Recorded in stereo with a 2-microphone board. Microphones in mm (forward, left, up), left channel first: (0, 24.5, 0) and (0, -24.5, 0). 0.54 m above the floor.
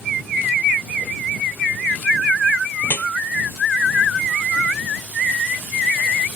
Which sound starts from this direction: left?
Dripping, at 2.8 s.